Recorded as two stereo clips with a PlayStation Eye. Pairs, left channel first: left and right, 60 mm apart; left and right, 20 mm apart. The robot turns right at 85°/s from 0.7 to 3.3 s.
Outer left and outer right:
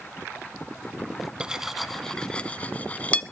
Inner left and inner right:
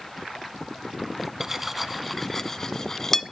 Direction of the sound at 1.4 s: 15° right (ahead or behind).